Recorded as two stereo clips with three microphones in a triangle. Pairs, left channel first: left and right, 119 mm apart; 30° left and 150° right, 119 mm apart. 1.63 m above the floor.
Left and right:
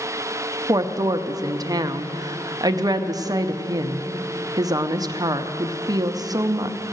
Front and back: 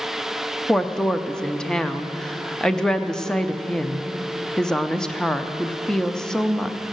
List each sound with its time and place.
0.7 s a woman speaking: 55° right, 0.6 m